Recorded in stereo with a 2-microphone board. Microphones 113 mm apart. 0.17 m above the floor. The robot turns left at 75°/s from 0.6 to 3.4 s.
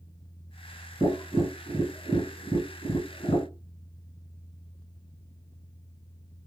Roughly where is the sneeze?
No sneeze in this recording.